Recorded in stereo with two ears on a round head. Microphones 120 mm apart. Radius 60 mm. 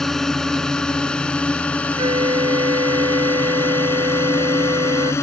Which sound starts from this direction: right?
A flute, at 2.0 s.